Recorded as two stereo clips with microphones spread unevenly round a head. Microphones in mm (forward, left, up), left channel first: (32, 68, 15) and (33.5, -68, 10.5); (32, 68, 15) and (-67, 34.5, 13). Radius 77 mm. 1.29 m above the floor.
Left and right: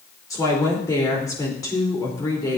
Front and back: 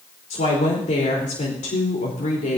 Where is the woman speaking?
25° left, 4 m.